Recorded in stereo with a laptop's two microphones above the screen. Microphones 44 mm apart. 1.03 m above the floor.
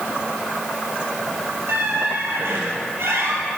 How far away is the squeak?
About 2.5 m.